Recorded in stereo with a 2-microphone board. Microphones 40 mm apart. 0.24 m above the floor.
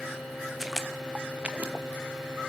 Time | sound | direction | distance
0.6 | footsteps | 5° right (ahead or behind) | 0.9 m